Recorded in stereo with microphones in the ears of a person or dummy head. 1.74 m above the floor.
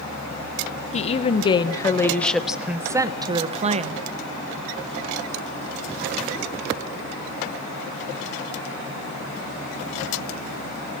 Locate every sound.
0.9 s a woman speaking: 40° left (ahead or behind), 1.3 m; by 4.0 s 40° right (ahead or behind), 1.3 m